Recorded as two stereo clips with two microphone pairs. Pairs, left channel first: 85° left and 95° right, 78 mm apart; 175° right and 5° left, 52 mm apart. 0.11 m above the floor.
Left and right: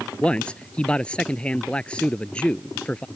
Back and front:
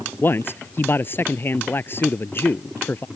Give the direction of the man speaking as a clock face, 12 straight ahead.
7 o'clock.